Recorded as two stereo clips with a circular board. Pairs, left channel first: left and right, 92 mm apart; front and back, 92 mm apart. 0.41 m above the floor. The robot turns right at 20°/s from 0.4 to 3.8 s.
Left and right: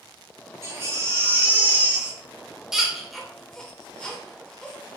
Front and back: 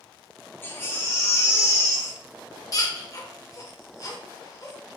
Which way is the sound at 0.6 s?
50° right.